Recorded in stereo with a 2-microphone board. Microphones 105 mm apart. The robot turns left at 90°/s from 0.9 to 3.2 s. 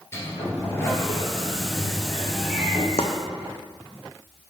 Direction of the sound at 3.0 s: 80° left.